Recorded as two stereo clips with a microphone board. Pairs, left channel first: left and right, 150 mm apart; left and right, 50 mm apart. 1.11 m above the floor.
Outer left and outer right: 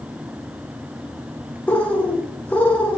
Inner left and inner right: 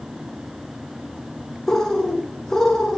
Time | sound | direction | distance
1.7 | a bird | 10° left (ahead or behind) | 1.1 m